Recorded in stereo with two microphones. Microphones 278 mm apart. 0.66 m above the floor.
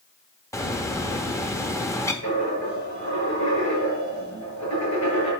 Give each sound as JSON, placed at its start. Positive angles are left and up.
{"t": 0.5, "sound": "a bird", "side_deg": 10, "distance_m": 1.0}
{"t": 2.2, "sound": "a dropped coin", "side_deg": 90, "distance_m": 5.0}